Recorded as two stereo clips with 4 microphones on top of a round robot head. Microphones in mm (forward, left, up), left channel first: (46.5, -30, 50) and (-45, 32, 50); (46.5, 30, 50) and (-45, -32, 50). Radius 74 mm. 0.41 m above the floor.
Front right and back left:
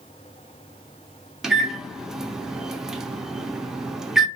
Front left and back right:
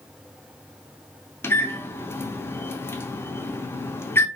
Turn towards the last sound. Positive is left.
turn(degrees=65)